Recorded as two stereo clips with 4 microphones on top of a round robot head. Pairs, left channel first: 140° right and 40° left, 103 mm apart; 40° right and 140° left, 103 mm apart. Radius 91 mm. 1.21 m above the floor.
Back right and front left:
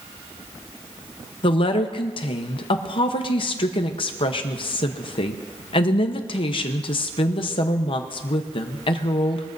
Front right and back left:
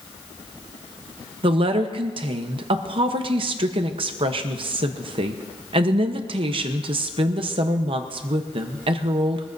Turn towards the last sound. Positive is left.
turn(degrees=180)